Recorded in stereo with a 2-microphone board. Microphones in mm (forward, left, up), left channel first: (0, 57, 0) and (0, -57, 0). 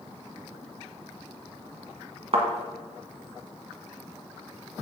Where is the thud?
55° right (ahead or behind), 1.5 m.